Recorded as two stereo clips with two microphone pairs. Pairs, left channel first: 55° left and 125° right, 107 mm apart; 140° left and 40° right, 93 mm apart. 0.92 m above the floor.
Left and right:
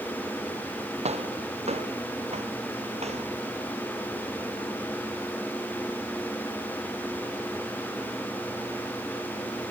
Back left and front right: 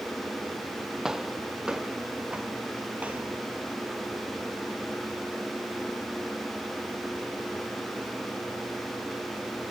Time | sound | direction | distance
1.1 | footsteps | 125° right | ?